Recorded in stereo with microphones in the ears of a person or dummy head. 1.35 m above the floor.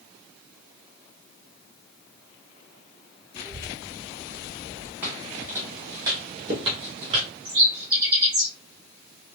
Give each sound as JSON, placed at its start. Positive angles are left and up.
{"t": 3.4, "sound": "a child speaking", "side_deg": 20, "distance_m": 0.7}
{"t": 5.0, "sound": "footsteps", "side_deg": -10, "distance_m": 3.0}
{"t": 7.5, "sound": "a bird", "side_deg": -25, "distance_m": 2.5}